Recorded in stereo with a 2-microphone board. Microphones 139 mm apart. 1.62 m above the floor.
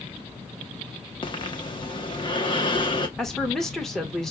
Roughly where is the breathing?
Left.